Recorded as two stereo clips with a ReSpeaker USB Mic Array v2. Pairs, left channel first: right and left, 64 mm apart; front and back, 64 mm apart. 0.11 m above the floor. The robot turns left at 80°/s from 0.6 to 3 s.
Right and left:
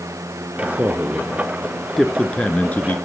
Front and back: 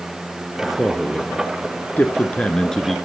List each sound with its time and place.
0.6 s a man speaking: 100° left, 1.3 m; by 3.0 s 90° right, 1.3 m